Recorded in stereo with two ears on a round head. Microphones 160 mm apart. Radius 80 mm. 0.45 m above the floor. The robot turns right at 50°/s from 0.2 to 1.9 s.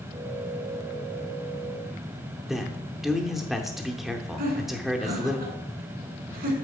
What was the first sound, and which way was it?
A man speaking, centre (ahead or behind).